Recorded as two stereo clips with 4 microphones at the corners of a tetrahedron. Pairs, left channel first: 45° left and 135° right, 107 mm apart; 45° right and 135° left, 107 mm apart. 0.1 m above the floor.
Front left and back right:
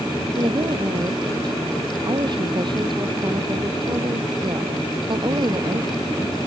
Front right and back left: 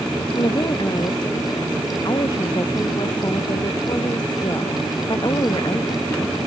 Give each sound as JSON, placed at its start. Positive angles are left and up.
{"t": 0.3, "sound": "a woman speaking", "azimuth_deg": -95}